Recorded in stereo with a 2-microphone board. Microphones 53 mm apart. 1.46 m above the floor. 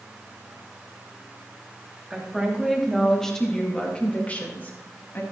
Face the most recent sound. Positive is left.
turn(degrees=40)  # may be behind; listen again after turning